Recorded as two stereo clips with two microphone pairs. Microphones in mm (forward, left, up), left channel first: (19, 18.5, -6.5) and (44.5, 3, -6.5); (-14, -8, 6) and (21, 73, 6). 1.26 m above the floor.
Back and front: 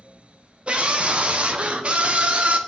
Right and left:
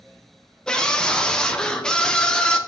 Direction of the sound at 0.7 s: 30° right.